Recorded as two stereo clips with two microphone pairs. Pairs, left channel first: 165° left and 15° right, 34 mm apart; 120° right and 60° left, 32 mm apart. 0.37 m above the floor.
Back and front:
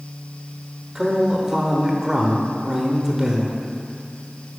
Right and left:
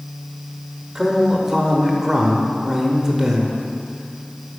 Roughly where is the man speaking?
Ahead.